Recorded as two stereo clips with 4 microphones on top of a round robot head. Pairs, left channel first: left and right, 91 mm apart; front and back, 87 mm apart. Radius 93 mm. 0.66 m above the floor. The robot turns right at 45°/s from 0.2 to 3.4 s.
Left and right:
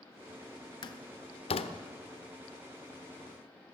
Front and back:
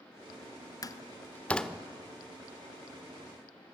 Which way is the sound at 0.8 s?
45° left.